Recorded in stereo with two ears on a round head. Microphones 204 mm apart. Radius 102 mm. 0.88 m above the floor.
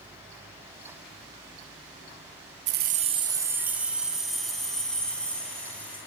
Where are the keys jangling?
55° right (ahead or behind), 0.7 m; by 6.0 s 5° left (ahead or behind), 4 m.